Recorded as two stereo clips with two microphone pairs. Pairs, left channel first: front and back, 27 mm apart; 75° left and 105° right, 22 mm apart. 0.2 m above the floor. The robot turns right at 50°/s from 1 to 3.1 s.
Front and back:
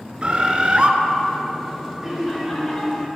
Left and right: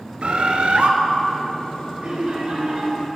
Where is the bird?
130° right, 0.6 m.